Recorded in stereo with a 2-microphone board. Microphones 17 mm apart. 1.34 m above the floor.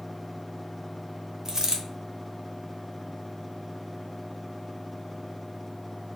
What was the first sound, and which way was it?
A dropped coin, 30° right (ahead or behind).